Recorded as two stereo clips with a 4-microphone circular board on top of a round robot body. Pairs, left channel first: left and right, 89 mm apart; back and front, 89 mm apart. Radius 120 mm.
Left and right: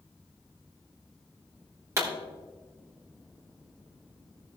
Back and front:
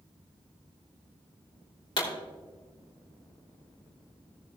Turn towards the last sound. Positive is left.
turn(degrees=-150)